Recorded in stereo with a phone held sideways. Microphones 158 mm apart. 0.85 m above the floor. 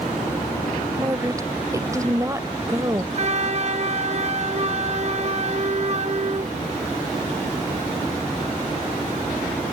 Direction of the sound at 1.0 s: 20° right (ahead or behind).